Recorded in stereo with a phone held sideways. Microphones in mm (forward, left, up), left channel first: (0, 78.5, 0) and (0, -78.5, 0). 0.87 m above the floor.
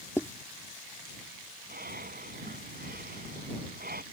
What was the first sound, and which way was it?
Writing, 15° left (ahead or behind).